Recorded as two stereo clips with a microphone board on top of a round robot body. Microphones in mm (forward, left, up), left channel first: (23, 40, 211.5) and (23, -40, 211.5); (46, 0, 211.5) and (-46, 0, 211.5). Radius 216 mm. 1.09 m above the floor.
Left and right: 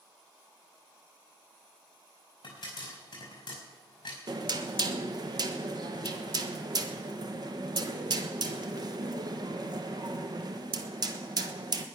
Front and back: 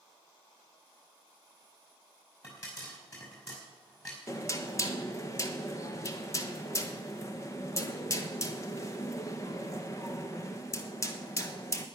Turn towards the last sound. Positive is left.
turn(degrees=-55)